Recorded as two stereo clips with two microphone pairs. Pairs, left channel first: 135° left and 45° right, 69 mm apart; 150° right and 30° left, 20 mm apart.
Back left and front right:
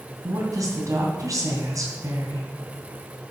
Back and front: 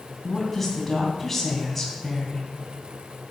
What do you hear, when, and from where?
0.2 s a woman speaking: 70° right, 2.5 m